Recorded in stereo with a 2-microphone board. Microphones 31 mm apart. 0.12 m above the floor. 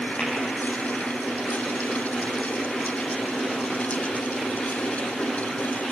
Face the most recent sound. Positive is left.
turn(degrees=50)  # may be behind; listen again after turning